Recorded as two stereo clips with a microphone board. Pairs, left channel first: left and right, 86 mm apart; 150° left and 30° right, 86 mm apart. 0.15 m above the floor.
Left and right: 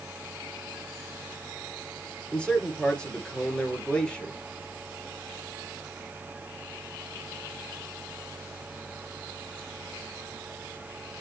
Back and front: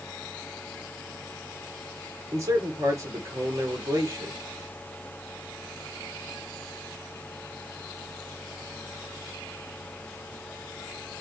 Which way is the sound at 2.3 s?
15° left.